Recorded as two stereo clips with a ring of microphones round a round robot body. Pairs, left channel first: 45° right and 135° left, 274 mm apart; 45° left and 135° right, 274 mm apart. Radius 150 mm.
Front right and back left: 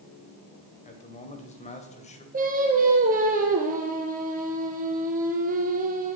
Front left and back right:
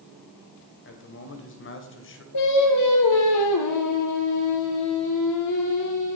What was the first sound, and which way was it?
A man speaking, 15° left.